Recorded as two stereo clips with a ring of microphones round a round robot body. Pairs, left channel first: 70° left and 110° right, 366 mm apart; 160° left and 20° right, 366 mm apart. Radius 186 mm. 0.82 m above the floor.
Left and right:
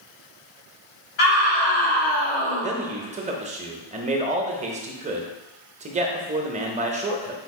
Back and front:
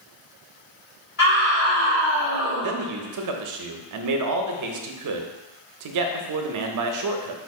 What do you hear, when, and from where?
1.2 s a scream: 100° left, 2 m; by 2.7 s 120° left, 1.4 m
2.6 s a man speaking: 45° right, 0.7 m